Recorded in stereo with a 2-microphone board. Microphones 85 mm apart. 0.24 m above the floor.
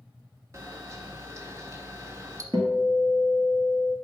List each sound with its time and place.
0.5 s a camera shutter: 40° right (ahead or behind), 0.7 m
2.5 s a guitar: 65° right (ahead or behind), 1.1 m